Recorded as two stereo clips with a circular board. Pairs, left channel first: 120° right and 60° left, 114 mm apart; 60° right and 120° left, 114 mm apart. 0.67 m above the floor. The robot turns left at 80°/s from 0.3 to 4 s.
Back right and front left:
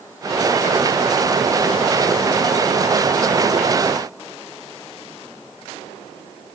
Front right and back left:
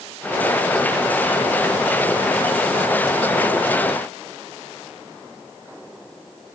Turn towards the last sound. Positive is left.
No sound to turn to.